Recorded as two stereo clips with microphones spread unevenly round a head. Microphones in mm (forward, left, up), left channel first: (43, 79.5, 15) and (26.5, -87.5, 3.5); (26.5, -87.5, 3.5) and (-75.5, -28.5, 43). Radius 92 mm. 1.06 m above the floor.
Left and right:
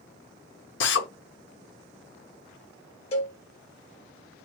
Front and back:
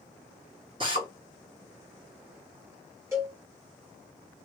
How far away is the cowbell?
About 0.8 m.